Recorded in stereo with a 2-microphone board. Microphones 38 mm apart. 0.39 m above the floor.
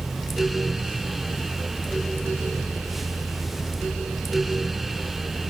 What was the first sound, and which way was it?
Only background noise.